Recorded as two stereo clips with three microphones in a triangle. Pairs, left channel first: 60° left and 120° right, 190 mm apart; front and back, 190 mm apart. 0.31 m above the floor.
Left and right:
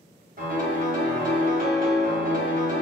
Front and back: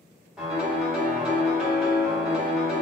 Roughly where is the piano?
Right.